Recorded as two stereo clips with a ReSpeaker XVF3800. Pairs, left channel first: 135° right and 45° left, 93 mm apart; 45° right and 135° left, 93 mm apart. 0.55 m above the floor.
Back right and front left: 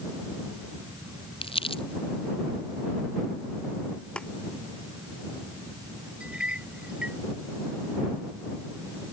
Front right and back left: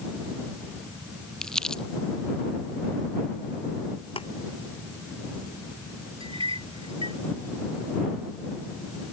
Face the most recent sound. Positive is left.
turn(degrees=125)